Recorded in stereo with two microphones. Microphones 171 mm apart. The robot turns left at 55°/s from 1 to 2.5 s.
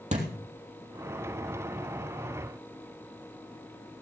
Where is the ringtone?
I don't hear a ringtone.